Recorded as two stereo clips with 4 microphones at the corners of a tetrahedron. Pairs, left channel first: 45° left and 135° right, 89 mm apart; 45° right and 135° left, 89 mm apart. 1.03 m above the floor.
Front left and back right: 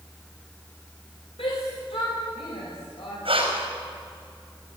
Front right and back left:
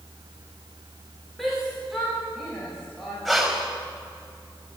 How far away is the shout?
About 5.5 m.